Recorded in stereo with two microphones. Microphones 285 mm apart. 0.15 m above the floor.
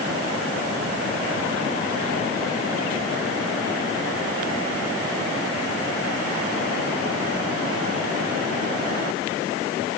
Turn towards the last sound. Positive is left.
No sound to turn to.